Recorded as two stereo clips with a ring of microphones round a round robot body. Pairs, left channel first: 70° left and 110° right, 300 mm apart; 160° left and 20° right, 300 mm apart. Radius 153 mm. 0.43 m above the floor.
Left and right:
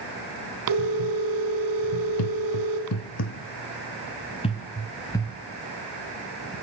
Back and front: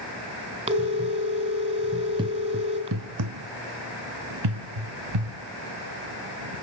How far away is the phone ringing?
About 3 m.